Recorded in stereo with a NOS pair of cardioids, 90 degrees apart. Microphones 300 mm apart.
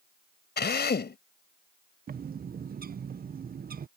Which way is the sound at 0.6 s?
35° left.